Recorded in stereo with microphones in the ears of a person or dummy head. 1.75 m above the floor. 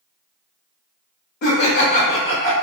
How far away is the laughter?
About 0.8 m.